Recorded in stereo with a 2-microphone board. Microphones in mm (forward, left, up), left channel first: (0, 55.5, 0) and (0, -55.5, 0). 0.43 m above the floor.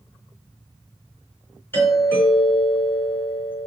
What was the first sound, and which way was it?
A doorbell, 20° left (ahead or behind).